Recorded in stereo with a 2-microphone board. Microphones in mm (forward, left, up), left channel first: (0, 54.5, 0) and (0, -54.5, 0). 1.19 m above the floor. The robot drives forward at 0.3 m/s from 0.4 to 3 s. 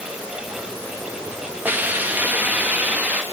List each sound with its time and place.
1.6 s a hiss: 15° right (ahead or behind), 1.6 m